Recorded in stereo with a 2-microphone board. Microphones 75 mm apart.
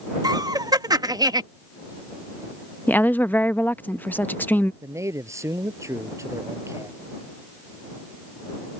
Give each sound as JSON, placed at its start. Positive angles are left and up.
{"t": 0.2, "sound": "laughter", "side_deg": -60}
{"t": 2.9, "sound": "a woman speaking", "side_deg": 25}
{"t": 4.8, "sound": "a man speaking", "side_deg": -40}